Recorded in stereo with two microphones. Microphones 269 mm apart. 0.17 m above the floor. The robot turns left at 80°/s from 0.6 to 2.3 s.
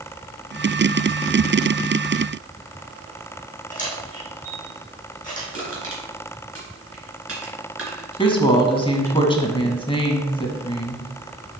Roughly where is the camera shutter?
Left.